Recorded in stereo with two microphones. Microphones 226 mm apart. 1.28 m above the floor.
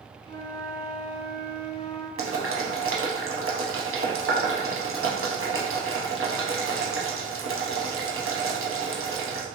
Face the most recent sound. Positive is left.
turn(degrees=-65)  # may be behind; listen again after turning